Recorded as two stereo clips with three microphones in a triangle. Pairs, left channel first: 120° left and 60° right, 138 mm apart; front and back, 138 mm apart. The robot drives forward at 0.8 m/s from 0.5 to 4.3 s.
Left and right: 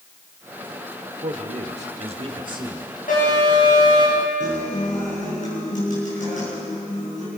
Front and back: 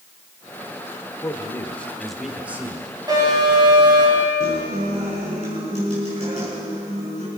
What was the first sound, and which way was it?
A man speaking, 60° right.